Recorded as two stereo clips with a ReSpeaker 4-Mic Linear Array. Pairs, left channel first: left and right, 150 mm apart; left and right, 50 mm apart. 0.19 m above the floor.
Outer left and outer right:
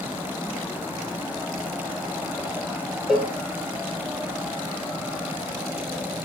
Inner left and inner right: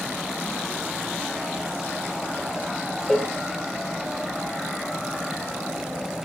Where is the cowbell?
5° right (ahead or behind), 2 m.